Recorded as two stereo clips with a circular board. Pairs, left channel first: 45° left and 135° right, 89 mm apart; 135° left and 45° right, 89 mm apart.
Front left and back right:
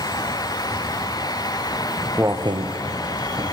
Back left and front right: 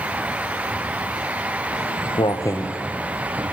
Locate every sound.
1.7 s footsteps: 125° left, 1.0 m; by 3.4 s 105° right, 1.4 m